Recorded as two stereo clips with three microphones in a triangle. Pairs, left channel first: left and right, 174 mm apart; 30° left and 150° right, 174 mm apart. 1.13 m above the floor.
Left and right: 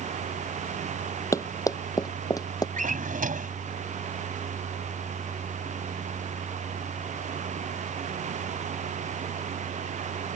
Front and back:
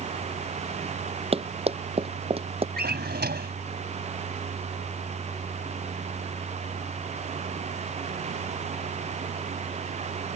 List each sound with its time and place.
1.3 s running footsteps: 160° left
2.8 s a drawer: 130° right